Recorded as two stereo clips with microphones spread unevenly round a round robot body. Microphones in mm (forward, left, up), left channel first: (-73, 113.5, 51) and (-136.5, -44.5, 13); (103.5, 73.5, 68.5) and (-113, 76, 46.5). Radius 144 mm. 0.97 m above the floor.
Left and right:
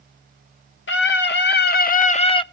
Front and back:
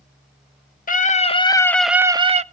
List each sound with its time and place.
0.9 s a scream: 50° left, 1.4 m; by 2.4 s 135° left, 1.0 m